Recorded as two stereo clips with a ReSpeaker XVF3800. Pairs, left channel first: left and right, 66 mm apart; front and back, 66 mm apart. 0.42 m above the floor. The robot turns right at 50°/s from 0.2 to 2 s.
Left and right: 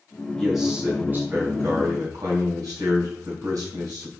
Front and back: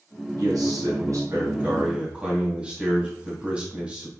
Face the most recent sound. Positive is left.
turn(degrees=-110)